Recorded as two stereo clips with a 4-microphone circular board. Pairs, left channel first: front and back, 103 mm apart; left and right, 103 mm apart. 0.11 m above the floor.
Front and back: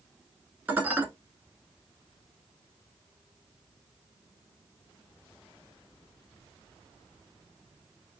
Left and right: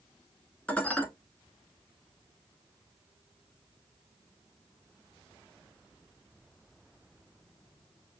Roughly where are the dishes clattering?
Behind left.